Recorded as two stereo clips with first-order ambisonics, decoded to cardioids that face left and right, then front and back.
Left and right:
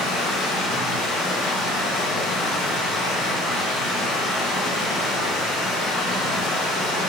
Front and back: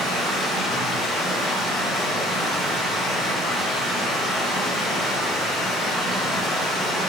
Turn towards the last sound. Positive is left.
turn(degrees=80)